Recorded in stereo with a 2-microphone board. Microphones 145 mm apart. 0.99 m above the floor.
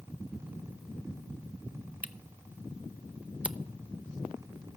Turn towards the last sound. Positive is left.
turn(degrees=-10)  # may be behind; listen again after turning